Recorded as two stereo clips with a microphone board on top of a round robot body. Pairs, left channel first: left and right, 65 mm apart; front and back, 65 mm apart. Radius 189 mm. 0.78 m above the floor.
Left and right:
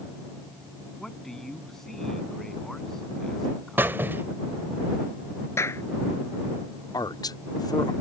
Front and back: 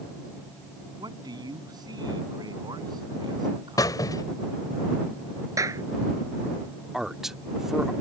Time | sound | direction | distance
1.0 | a man speaking | 175° left | ?
3.8 | a squeak | 30° right | ?
5.6 | a clap | 140° left | ?
6.9 | a man speaking | 95° left | ?